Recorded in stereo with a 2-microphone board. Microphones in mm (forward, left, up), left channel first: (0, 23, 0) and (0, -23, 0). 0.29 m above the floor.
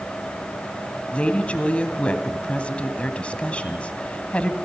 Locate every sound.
1.1 s a woman speaking: 25° left (ahead or behind), 2 m